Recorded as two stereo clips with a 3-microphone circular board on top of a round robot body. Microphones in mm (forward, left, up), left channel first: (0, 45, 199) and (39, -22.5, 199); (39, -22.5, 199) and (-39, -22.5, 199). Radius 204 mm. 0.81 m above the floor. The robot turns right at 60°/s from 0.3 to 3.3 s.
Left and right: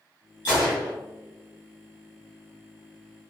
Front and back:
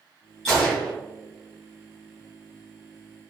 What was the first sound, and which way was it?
A gunshot, 85° left.